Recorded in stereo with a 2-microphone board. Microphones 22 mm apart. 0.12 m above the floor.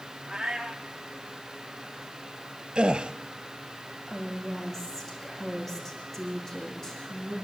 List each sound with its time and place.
0.3 s a cat meowing: 20° right (ahead or behind), 3.5 m
2.8 s a gasp: 50° right (ahead or behind), 1.0 m
4.1 s a woman speaking: 20° left (ahead or behind), 7 m